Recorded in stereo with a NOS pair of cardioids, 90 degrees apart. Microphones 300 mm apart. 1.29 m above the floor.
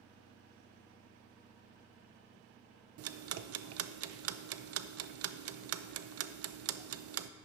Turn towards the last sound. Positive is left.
turn(degrees=-50)